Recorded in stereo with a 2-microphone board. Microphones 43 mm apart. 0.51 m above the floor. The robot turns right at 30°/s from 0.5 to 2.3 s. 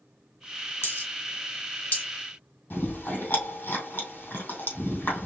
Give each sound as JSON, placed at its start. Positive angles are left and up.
{"t": 0.8, "sound": "a dropped coin", "side_deg": 75, "distance_m": 2.5}
{"t": 2.7, "sound": "chewing", "side_deg": 50, "distance_m": 3.0}